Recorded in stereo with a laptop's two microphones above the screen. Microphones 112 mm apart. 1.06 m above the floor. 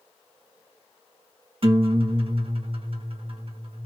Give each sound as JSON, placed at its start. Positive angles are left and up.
{"t": 1.6, "sound": "a guitar", "side_deg": -55, "distance_m": 1.3}